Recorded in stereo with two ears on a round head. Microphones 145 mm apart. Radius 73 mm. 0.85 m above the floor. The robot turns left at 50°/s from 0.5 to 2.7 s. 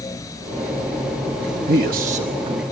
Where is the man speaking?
100° right, 0.9 m; by 2.6 s 150° right, 0.9 m.